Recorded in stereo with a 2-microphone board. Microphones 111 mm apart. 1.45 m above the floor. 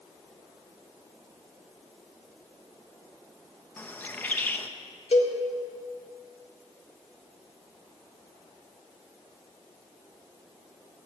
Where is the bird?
15° left (ahead or behind), 0.8 m.